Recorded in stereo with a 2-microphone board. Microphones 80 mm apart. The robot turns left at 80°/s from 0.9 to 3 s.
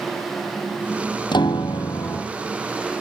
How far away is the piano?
About 1.0 m.